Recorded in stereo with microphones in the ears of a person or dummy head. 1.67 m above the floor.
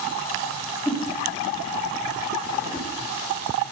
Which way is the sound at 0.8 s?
5° left (ahead or behind).